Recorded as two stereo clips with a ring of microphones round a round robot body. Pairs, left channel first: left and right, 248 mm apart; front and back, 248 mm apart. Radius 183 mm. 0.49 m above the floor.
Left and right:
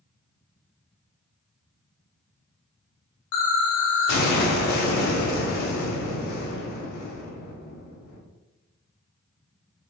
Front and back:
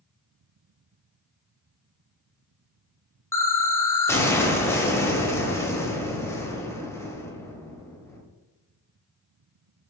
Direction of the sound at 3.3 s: 80° left.